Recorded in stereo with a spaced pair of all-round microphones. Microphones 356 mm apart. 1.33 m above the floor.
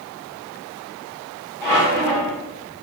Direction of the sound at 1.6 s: 5° left (ahead or behind).